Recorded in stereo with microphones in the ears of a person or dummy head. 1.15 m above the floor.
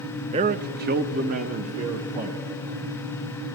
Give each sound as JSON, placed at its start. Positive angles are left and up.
{"t": 0.3, "sound": "a man speaking", "side_deg": -30, "distance_m": 0.6}